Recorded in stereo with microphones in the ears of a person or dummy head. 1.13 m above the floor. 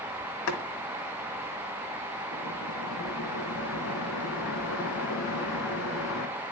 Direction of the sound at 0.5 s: 70° left (ahead or behind).